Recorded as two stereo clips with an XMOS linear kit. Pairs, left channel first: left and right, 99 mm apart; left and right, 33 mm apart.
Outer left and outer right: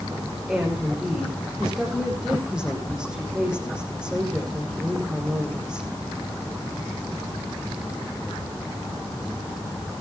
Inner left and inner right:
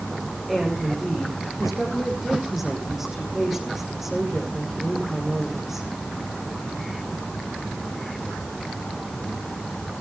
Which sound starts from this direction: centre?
A woman speaking, at 0.5 s.